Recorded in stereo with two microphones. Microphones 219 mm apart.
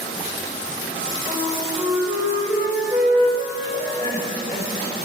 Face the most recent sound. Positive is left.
turn(degrees=-40)  # may be behind; listen again after turning